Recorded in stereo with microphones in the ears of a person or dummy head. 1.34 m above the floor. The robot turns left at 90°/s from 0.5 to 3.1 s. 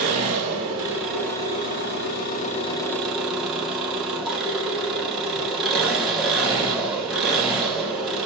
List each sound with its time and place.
0.0 s an engine running: 120° right, 1.0 m; by 8.3 s 5° left, 1.0 m